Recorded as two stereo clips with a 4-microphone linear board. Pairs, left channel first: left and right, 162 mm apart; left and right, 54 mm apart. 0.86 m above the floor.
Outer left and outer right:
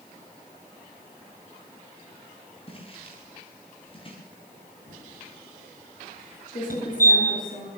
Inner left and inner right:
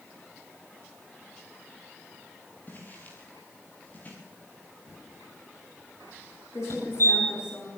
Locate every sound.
2.7 s footsteps: 35° left (ahead or behind), 9 m
4.9 s typing on a keyboard: 60° left (ahead or behind), 8.5 m
6.7 s a fire alarm: 65° left (ahead or behind), 8 m